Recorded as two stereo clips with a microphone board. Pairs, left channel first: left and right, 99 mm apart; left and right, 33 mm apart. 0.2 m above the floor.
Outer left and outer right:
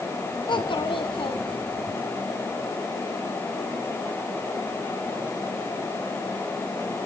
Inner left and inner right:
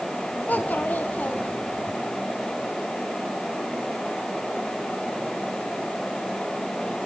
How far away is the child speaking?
About 1.1 m.